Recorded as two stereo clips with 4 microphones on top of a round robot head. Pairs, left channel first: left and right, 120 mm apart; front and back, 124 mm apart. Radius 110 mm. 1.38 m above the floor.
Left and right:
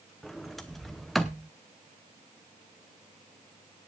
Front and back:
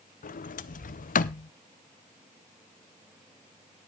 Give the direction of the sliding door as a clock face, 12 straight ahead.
12 o'clock.